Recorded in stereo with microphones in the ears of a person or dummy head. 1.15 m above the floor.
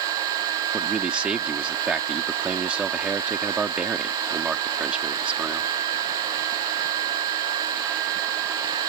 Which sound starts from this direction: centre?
A man speaking, at 0.7 s.